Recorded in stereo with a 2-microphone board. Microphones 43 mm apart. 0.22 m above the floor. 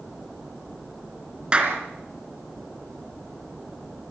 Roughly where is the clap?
Right.